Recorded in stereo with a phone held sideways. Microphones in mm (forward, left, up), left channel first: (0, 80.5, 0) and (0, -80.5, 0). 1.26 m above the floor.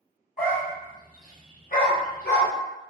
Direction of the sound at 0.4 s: 65° left (ahead or behind).